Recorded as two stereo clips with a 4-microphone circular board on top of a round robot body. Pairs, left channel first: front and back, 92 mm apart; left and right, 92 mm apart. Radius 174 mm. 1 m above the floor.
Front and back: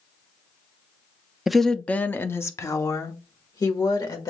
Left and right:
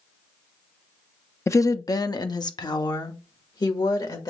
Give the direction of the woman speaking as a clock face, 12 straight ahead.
9 o'clock.